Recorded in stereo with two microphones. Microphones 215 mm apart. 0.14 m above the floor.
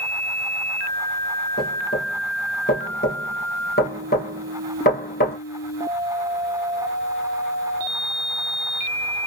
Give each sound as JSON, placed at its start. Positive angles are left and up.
{"t": 1.6, "sound": "knocking", "side_deg": 45, "distance_m": 2.5}